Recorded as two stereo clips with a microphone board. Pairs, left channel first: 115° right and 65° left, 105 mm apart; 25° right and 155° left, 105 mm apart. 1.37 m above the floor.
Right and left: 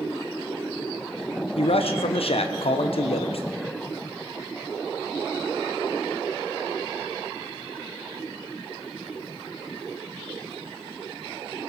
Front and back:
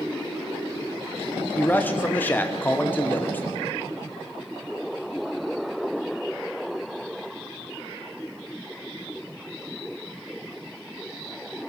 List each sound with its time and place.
1.6 s a man speaking: 95° right, 0.9 m